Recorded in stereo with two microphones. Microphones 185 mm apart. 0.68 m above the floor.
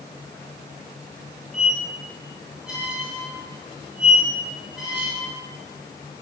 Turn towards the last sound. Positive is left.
turn(degrees=0)  # may be behind; listen again after turning